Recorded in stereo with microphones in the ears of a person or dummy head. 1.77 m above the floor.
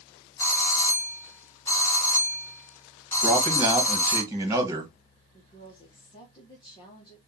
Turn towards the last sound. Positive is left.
turn(degrees=30)  # may be behind; listen again after turning